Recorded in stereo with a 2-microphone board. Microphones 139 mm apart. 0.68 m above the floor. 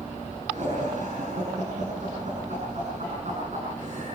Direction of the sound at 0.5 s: 55° right (ahead or behind).